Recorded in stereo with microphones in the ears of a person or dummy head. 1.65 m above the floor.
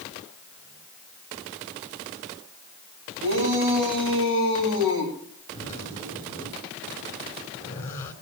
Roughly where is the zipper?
Centre.